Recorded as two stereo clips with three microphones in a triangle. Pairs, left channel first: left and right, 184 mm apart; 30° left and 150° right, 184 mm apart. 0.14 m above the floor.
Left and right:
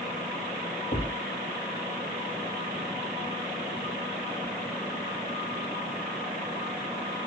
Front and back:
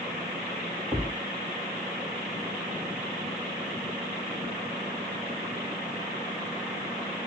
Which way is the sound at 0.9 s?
125° left.